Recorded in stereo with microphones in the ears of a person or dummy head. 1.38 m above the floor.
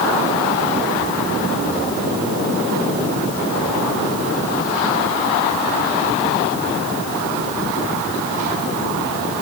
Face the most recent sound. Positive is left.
No sound to turn to.